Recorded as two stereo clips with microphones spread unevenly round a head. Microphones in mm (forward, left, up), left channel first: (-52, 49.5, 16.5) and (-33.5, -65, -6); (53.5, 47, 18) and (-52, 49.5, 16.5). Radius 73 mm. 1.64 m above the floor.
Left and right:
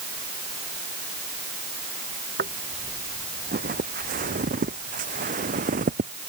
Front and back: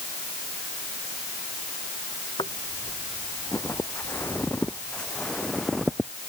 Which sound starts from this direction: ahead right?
Footsteps, at 2.4 s.